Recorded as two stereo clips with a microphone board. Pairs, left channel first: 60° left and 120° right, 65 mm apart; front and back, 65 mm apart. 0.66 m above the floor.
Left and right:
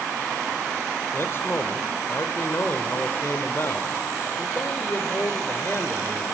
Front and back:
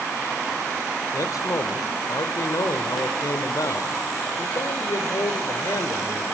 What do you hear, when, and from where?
1.1 s a man speaking: 15° left, 1.8 m